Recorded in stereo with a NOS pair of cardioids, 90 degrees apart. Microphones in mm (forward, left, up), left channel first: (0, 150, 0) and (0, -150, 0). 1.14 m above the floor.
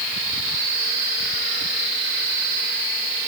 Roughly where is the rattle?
No rattle in this recording.